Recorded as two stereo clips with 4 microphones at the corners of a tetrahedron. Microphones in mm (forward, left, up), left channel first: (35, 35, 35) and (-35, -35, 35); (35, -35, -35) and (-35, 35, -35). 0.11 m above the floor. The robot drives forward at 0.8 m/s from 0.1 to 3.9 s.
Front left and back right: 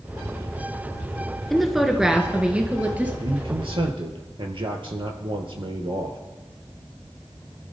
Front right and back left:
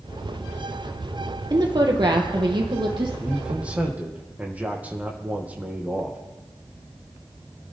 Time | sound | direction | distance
1.5 | a woman speaking | 135° left | 2.0 m
3.2 | a man speaking | 140° right | 2.5 m